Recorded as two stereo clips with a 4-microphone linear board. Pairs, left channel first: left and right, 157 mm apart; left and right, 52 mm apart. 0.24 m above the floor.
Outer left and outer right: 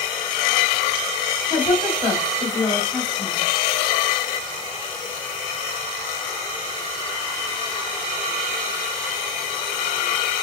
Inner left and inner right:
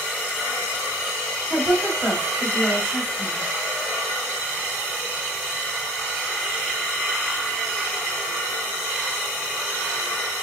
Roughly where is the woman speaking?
Centre.